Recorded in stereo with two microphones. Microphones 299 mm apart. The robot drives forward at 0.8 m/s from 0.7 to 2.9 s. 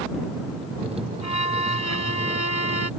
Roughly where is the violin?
Left.